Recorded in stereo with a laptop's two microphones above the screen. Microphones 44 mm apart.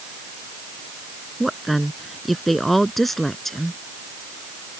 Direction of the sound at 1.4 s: Centre (ahead or behind).